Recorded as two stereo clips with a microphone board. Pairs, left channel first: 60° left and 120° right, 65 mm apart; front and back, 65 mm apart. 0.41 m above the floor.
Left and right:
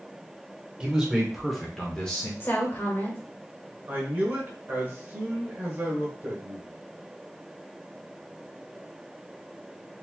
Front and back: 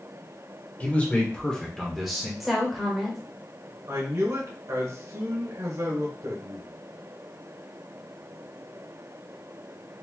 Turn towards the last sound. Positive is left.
turn(degrees=-170)